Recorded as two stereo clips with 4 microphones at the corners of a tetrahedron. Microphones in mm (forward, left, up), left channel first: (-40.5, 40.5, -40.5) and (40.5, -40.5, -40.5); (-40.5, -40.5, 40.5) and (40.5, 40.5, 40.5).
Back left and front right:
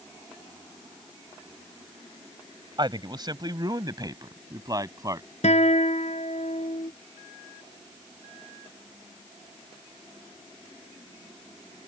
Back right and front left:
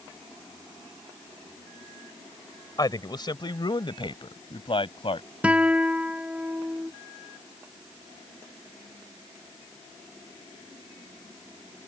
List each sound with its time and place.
2.8 s a man speaking: 85° right; by 5.3 s 100° right
5.4 s a guitar: 125° left